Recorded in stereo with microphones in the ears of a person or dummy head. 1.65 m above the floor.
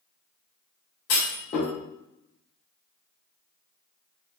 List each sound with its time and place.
1.1 s a clunk: 50° left (ahead or behind), 2.0 m